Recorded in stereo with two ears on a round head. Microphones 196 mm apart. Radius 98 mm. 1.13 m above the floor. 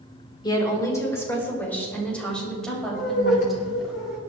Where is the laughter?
65° left (ahead or behind), 3.5 m.